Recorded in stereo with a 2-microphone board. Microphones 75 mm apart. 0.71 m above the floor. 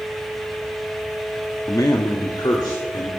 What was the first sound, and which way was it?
A man speaking, 50° left (ahead or behind).